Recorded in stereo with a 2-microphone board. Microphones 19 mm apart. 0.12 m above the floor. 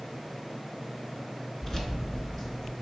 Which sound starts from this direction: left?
Keys jangling, at 1.6 s.